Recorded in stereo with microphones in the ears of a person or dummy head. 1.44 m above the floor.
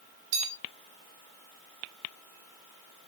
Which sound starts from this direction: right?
A bell, at 0.3 s.